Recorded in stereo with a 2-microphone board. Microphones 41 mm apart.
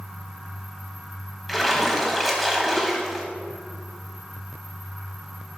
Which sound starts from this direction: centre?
A splash, at 1.5 s.